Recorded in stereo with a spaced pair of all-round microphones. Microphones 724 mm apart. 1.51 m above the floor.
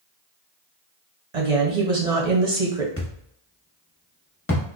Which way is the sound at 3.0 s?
20° left (ahead or behind).